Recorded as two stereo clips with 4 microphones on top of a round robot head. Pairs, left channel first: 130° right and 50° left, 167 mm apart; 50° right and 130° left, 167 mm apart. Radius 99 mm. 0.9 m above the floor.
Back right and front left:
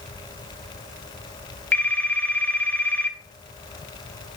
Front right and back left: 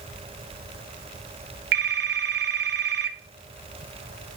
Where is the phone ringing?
150° left, 0.8 m.